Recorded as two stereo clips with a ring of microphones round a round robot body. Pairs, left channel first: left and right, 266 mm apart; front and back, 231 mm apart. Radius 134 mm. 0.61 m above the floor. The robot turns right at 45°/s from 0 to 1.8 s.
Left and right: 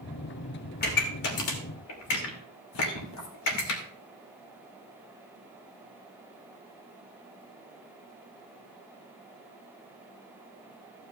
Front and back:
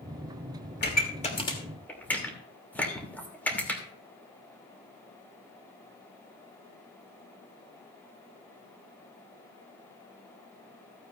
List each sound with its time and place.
0.8 s a pop: 35° left, 2.5 m; by 3.8 s 80° left, 2.5 m